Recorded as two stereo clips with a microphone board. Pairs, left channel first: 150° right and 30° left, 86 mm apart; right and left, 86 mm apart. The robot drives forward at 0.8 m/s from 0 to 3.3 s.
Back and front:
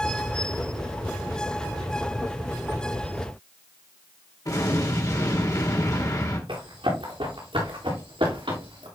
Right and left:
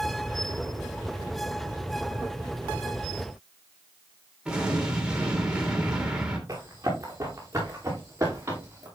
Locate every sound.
4.5 s an explosion: 170° left, 2 m
6.5 s running footsteps: 35° left, 4.5 m; by 8.9 s 30° left, 6 m